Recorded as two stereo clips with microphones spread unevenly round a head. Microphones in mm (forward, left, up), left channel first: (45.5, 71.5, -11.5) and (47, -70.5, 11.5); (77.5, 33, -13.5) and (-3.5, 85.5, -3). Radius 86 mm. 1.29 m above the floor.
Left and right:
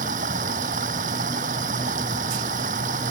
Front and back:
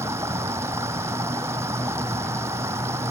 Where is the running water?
140° right.